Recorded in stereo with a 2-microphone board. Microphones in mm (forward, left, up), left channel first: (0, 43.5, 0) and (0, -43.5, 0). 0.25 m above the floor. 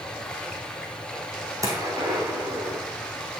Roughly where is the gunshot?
Right.